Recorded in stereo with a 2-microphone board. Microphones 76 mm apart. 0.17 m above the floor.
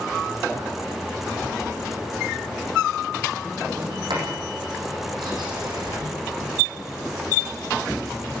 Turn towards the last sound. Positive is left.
turn(degrees=-75)  # may be behind; listen again after turning